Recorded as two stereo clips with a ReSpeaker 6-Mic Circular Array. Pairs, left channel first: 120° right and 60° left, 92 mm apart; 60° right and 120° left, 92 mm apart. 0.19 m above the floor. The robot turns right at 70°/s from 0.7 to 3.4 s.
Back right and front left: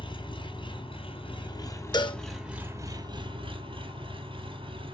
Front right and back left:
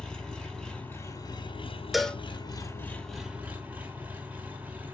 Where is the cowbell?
155° right, 0.6 m; by 2.2 s 135° right, 0.6 m.